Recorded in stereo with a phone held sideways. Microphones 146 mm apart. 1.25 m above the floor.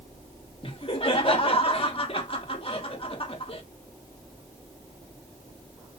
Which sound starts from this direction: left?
Laughter, at 0.6 s.